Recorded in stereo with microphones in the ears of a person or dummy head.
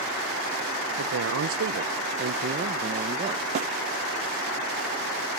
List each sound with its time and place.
1.0 s a man speaking: 75° right (ahead or behind); by 3.5 s 30° right (ahead or behind)
3.5 s a snare drum: 45° right (ahead or behind)